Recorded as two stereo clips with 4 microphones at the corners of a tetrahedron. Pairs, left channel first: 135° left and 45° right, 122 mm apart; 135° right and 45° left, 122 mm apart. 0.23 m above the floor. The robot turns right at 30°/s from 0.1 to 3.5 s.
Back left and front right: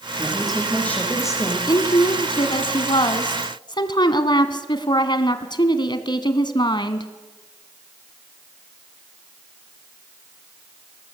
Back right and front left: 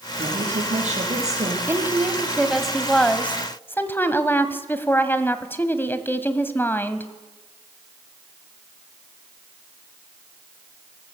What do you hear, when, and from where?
0.2 s a woman speaking: 40° left, 8.5 m; by 1.6 s 80° left, 8.5 m
1.7 s a woman speaking: 105° left, 1.4 m; by 7.1 s 160° left, 1.4 m